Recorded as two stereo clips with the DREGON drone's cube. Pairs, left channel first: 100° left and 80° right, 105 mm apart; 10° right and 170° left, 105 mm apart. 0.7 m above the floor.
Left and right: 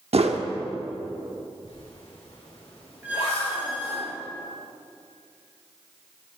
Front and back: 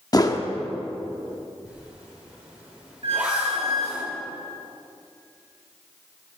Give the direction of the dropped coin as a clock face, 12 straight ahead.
I don't hear a dropped coin.